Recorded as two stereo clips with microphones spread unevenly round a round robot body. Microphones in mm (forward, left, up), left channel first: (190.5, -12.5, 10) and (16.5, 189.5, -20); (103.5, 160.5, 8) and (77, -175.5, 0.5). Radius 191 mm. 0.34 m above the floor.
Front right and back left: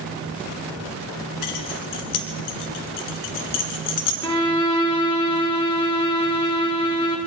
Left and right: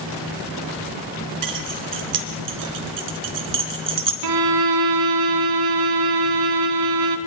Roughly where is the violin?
Behind right.